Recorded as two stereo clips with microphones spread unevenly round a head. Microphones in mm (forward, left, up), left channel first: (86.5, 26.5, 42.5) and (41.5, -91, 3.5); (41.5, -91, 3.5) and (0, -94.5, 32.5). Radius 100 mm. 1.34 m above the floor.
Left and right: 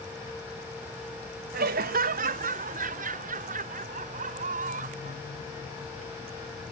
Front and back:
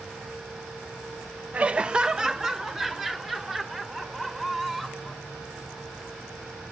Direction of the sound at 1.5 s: 130° right.